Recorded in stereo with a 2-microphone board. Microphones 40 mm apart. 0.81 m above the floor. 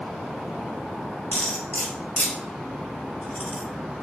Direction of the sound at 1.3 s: 40° left (ahead or behind).